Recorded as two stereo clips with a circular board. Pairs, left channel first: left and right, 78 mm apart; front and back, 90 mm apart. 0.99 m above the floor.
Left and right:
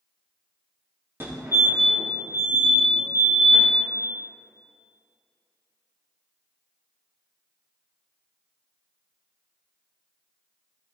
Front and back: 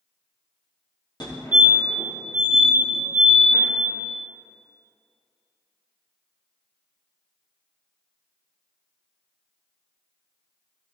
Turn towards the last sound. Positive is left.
turn(degrees=-30)